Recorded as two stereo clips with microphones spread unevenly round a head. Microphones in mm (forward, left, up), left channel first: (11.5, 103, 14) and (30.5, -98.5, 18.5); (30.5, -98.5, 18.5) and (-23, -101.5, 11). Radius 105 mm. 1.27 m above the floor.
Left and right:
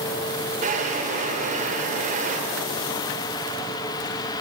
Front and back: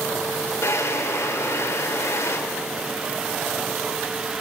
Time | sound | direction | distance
0.6 | a drawer | 30° right | 3 m